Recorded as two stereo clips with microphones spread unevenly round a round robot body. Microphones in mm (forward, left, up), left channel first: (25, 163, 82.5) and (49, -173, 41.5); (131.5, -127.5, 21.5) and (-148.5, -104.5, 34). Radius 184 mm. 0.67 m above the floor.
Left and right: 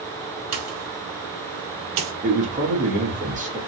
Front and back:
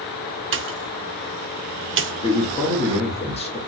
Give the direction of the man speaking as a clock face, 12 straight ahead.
2 o'clock.